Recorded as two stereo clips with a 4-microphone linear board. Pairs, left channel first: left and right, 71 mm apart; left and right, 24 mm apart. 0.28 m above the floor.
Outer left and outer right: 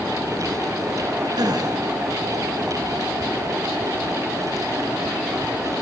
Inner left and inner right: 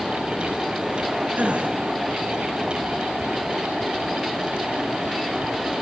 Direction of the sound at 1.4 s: 70° right (ahead or behind).